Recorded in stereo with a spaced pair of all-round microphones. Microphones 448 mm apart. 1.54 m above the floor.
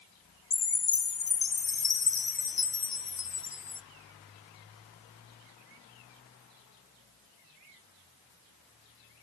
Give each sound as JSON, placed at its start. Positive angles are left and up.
{"t": 0.5, "sound": "a chime", "side_deg": 50, "distance_m": 0.5}